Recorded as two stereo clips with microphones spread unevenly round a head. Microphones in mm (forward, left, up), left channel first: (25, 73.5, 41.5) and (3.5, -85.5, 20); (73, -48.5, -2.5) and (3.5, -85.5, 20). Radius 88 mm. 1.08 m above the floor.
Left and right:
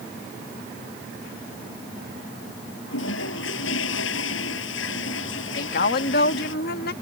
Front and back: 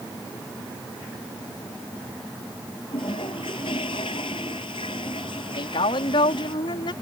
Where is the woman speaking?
60° left.